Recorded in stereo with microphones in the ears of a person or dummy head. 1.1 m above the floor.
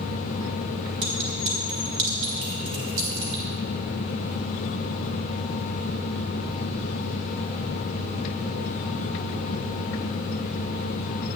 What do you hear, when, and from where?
1.0 s a clink: 65° right (ahead or behind), 5 m